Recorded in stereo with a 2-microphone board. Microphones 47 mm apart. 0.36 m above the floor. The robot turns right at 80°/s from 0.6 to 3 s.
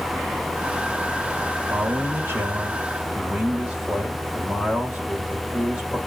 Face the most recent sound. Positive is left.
turn(degrees=-25)